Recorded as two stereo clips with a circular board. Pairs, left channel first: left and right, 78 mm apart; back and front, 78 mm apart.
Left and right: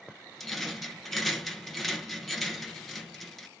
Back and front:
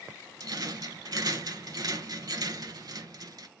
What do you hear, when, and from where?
0.4 s a rattle: 5° left, 0.8 m